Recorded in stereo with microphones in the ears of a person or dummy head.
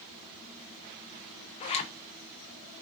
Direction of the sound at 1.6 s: 35° left (ahead or behind).